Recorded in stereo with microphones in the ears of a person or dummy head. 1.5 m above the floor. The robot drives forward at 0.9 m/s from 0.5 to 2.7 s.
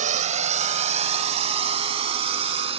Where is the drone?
45° right (ahead or behind); by 2.8 s 35° right (ahead or behind).